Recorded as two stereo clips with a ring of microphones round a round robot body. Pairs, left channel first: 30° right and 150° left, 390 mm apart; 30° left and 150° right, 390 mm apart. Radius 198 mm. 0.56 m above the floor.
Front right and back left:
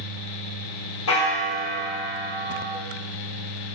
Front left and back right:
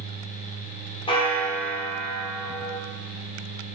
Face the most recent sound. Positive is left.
turn(degrees=-40)